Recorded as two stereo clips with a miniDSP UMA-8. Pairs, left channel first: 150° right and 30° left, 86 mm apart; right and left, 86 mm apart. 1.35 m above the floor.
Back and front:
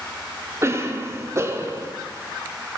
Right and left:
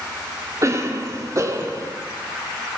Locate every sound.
0.6 s a cough: 65° left, 0.5 m